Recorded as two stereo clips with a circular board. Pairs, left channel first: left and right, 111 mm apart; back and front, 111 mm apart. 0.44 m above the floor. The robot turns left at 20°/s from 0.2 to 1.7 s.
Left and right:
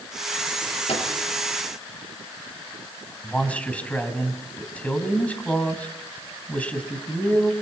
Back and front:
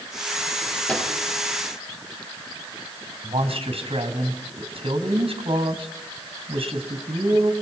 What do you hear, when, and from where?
0.9 s a microwave: 100° left, 6.5 m; by 1.1 s 95° left, 6.5 m
3.2 s a man speaking: 15° left, 3.5 m